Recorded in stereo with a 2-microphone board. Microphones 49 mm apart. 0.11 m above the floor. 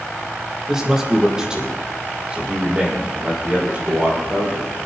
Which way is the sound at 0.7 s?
10° right (ahead or behind).